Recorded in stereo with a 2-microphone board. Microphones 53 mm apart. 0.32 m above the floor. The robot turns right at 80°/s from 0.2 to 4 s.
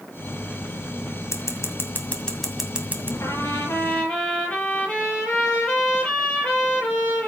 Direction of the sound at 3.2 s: 95° left.